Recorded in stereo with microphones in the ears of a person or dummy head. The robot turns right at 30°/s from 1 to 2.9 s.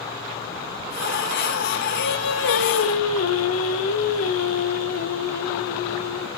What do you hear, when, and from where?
2.0 s singing: 70° left (ahead or behind), 0.8 m; by 6.3 s 80° left, 0.8 m